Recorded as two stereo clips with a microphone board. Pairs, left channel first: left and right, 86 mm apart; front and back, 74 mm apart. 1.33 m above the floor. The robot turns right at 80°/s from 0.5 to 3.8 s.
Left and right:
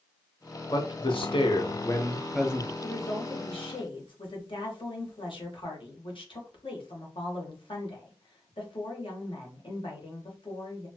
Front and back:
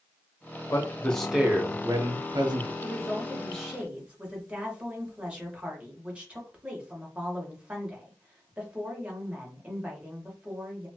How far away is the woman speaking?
About 1.3 m.